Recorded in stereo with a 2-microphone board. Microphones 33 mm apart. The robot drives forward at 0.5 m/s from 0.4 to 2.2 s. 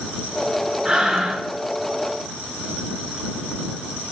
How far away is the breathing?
About 0.6 m.